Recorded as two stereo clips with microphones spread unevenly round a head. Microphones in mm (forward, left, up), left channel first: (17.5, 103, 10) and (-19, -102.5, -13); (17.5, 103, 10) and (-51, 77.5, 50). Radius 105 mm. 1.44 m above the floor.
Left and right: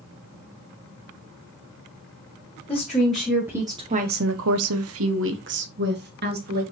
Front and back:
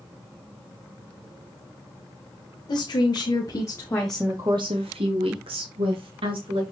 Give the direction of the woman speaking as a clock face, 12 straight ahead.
12 o'clock.